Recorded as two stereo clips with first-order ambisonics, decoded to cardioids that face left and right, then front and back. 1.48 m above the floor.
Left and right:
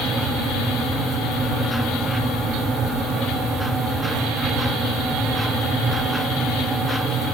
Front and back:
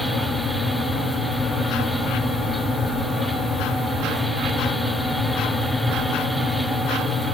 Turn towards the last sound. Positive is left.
No sound to turn to.